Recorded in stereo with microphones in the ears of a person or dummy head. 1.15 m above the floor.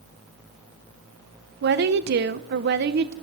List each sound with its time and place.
1.6 s a woman speaking: 50° right (ahead or behind), 0.9 m